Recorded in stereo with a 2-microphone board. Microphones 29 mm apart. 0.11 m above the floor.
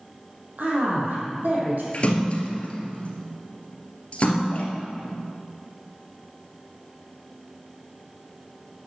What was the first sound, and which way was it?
A man speaking, 70° right (ahead or behind).